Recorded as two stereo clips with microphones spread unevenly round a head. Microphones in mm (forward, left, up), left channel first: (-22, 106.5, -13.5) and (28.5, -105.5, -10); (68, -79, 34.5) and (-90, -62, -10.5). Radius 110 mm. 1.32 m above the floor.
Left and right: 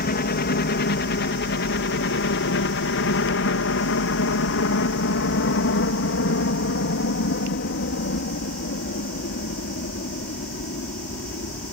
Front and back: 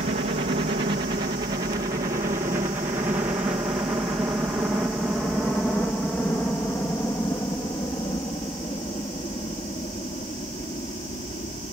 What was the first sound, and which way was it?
A helicopter, 140° left.